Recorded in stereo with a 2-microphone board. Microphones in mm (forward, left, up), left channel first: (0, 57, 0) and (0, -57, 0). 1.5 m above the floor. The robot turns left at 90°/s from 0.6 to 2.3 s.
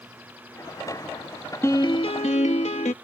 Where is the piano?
155° left; by 2.9 s 95° left.